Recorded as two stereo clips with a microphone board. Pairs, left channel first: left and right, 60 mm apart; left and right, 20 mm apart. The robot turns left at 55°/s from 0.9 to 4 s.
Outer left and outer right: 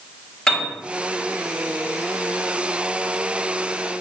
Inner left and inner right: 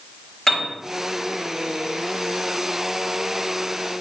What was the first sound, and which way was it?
A piano, 10° left (ahead or behind).